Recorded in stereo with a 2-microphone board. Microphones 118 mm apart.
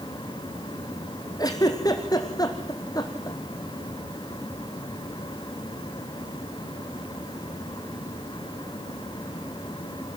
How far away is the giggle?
About 1.9 m.